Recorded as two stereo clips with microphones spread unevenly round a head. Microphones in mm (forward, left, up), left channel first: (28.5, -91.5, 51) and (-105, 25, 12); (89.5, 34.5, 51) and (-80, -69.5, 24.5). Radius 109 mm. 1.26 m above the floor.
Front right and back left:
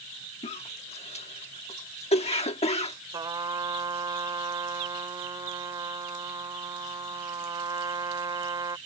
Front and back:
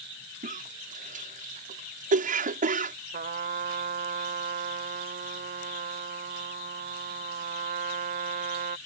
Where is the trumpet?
150° right.